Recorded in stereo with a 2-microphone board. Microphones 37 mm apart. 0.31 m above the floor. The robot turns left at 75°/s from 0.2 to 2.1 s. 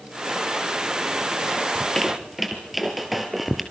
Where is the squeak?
20° left (ahead or behind), 2.5 m; by 3.6 s 5° right (ahead or behind), 2.5 m.